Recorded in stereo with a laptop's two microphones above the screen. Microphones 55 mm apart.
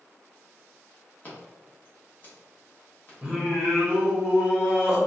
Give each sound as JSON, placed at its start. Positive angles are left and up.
{"t": 1.2, "sound": "scissors", "side_deg": 30, "distance_m": 1.0}
{"t": 3.2, "sound": "singing", "side_deg": -15, "distance_m": 0.9}